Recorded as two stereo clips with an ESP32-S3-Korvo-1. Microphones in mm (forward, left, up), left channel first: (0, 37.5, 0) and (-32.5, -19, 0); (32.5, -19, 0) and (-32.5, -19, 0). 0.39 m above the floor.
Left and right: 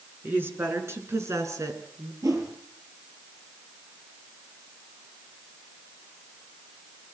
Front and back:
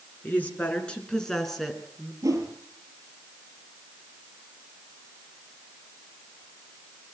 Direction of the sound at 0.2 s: 60° right.